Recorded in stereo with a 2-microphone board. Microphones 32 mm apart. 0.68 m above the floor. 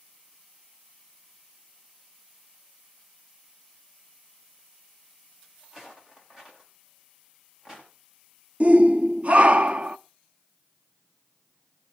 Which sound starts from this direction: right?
A shout, at 8.6 s.